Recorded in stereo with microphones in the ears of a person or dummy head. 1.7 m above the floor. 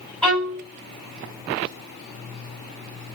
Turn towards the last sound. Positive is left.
turn(degrees=10)  # may be behind; listen again after turning